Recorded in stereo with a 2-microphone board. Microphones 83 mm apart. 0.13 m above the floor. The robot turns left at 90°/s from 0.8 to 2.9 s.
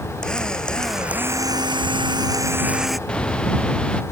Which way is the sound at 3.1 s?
10° left (ahead or behind).